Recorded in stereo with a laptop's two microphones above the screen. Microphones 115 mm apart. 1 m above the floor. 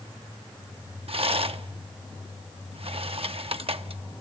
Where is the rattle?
60° right (ahead or behind), 0.7 m.